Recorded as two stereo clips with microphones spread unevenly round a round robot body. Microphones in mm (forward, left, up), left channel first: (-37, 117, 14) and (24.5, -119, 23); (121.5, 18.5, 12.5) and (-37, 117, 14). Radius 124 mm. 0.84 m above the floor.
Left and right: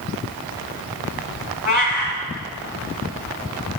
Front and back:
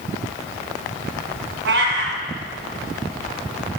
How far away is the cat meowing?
About 1.5 m.